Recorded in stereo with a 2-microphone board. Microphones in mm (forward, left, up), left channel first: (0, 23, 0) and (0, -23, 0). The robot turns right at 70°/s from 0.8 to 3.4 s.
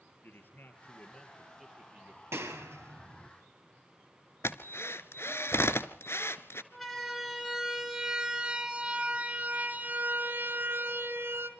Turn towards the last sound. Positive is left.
turn(degrees=-55)  # may be behind; listen again after turning